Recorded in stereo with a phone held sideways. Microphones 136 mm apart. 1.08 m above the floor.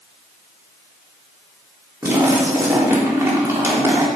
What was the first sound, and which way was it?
A splash, 15° right (ahead or behind).